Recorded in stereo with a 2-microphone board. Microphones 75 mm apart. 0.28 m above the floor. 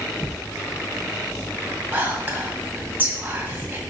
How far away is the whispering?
About 1.7 m.